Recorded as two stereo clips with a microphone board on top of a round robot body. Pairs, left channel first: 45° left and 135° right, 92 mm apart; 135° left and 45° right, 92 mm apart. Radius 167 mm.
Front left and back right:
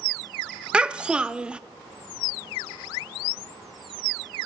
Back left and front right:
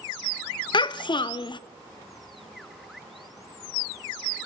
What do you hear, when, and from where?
0.7 s a child speaking: 150° left, 0.5 m